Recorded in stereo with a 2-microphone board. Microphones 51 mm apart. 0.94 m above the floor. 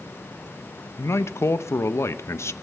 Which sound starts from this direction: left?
A man speaking, at 1.0 s.